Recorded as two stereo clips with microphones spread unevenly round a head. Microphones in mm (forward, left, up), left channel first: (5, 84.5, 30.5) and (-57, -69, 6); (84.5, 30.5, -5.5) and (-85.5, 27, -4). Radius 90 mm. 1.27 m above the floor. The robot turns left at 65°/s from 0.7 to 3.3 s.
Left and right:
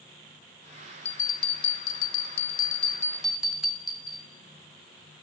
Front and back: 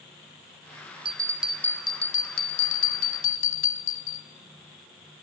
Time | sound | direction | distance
1.1 | a bell | 120° left | 2.0 m